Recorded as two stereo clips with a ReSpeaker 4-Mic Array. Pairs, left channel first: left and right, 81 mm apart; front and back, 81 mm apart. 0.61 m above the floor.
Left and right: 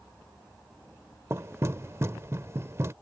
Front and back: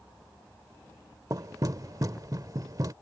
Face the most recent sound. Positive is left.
turn(degrees=-145)